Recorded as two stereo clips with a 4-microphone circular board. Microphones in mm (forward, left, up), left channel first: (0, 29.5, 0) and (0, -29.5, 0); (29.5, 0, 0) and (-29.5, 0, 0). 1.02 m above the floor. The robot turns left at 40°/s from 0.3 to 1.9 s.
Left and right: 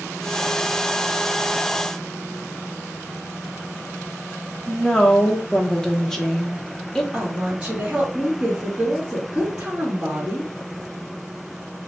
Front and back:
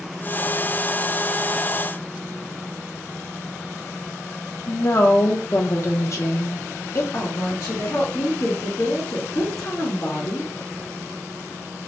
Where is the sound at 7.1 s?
15° right, 1.4 m.